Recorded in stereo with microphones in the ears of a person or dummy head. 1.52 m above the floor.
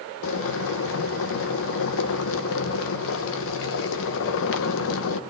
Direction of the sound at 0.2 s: 70° left (ahead or behind).